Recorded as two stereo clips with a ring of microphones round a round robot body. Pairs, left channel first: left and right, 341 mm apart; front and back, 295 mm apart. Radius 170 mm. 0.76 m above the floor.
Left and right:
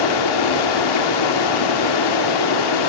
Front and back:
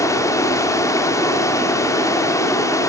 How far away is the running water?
About 1.8 m.